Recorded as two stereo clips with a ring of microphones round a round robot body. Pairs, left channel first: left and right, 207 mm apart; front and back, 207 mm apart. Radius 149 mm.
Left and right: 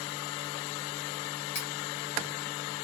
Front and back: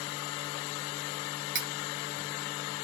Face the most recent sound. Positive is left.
turn(degrees=155)